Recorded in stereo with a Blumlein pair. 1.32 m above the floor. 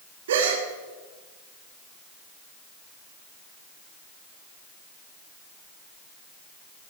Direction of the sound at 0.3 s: 60° right.